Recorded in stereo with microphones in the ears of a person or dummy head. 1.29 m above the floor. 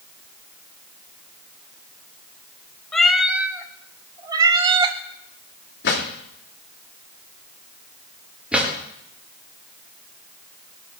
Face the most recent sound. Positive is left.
turn(degrees=-5)  # may be behind; listen again after turning